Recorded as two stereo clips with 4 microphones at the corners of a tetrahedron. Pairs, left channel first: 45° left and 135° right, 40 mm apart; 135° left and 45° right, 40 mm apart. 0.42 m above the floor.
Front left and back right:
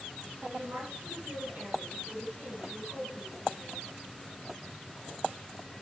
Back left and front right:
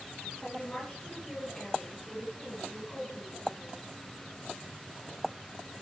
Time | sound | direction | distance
0.4 | a woman speaking | 170° right | 7.5 m